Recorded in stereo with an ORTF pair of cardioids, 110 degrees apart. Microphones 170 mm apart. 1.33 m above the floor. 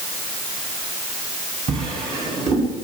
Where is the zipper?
No zipper in this recording.